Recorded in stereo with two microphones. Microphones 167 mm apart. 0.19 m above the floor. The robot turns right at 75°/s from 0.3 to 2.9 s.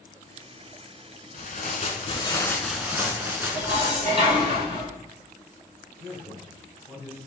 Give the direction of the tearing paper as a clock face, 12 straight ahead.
9 o'clock.